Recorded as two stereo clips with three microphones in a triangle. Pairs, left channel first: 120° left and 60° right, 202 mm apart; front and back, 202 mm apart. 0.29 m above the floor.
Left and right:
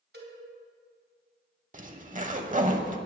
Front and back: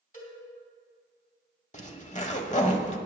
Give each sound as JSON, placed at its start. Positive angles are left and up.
{"t": 0.1, "sound": "a cowbell", "azimuth_deg": -45, "distance_m": 2.5}
{"t": 1.7, "sound": "a zipper", "azimuth_deg": -35, "distance_m": 0.9}